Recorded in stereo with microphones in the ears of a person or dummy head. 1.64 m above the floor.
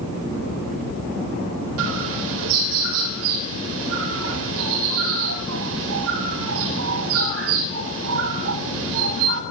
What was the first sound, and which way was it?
A bird, 75° right (ahead or behind).